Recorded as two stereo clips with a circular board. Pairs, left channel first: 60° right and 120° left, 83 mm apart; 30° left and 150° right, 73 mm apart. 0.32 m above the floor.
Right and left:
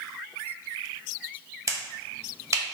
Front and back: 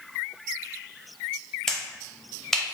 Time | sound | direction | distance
1.7 | a finger snap | 110° left | 0.8 m